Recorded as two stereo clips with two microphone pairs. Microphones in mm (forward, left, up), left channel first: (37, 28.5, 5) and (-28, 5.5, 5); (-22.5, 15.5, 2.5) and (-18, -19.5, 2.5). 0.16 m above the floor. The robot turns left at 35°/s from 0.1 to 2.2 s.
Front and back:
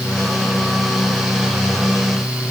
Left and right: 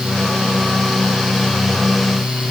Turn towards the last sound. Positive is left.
No sound to turn to.